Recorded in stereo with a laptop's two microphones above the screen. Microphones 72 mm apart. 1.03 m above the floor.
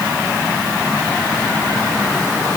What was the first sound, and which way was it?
Only background noise.